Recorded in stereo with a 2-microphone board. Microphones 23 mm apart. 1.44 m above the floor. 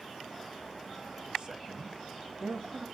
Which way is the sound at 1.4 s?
40° right (ahead or behind).